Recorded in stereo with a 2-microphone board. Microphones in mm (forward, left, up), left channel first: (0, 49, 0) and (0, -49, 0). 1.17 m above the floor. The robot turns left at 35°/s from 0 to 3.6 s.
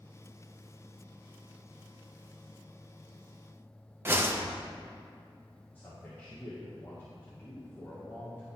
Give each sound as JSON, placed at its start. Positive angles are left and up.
{"t": 4.0, "sound": "a whoosh", "side_deg": -20, "distance_m": 0.5}
{"t": 5.8, "sound": "a man speaking", "side_deg": 20, "distance_m": 1.3}